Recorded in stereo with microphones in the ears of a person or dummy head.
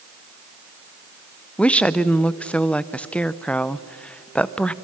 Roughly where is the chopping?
I don't hear chopping.